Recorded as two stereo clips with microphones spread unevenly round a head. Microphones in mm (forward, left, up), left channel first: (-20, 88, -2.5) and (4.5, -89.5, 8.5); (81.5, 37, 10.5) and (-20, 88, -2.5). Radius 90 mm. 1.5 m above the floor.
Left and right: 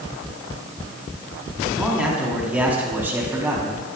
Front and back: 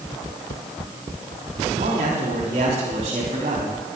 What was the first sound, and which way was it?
A man speaking, 165° right.